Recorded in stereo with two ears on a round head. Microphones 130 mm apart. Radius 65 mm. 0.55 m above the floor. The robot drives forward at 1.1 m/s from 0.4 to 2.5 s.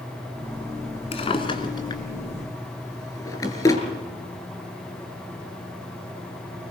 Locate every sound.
1.1 s a drawer: 45° left (ahead or behind), 1.9 m; by 3.8 s 25° left (ahead or behind), 3 m